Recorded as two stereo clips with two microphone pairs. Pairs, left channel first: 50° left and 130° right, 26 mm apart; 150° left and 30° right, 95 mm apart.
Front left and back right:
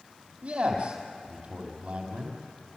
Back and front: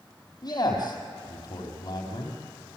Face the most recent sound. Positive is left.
turn(degrees=-165)